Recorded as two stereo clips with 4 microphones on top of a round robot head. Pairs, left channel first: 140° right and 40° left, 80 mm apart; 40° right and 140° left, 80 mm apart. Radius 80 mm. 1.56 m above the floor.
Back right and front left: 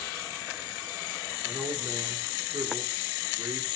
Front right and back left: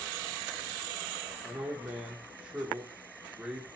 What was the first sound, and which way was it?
A man speaking, 75° left.